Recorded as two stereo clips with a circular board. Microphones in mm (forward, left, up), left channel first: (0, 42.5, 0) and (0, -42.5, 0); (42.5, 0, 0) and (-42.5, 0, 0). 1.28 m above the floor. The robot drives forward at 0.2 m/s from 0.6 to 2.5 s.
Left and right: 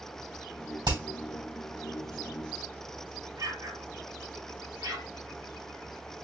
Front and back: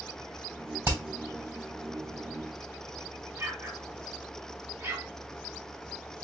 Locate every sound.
0.8 s hammering: 120° right, 3 m
3.4 s an explosion: 120° right, 1.1 m